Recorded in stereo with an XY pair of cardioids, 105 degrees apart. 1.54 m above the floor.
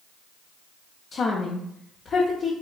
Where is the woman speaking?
50° left, 0.5 m.